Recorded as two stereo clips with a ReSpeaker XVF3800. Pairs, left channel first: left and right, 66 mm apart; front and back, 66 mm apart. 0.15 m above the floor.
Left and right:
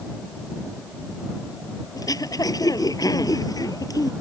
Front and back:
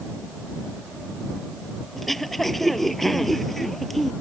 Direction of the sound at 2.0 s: 85° left.